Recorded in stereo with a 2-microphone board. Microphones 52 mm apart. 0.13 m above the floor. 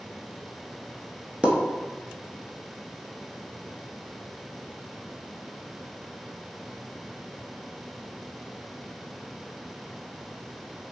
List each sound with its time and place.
1.4 s a pop: 20° right (ahead or behind), 0.5 m